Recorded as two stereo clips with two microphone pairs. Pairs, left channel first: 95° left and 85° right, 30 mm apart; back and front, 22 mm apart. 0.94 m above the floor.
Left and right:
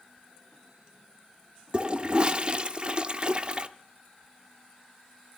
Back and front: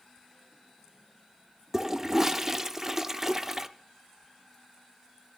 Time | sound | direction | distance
1.7 | a toilet flushing | 70° right | 0.5 m